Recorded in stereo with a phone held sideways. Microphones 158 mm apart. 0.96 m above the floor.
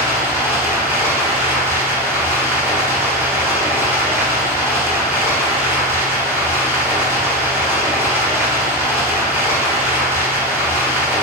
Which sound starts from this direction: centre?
Running water, at 0.0 s.